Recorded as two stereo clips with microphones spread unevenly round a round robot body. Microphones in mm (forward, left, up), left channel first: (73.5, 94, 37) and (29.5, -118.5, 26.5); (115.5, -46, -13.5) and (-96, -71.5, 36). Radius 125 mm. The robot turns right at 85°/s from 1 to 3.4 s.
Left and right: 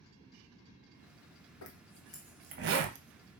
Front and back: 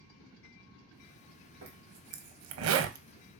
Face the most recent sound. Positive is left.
turn(degrees=-85)